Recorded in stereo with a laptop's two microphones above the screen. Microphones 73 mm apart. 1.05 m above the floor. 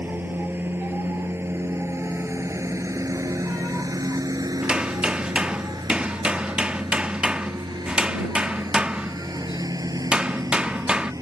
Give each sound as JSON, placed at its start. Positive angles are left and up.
{"t": 0.0, "sound": "a lawn mower", "side_deg": -25}
{"t": 4.6, "sound": "hammering", "side_deg": -15}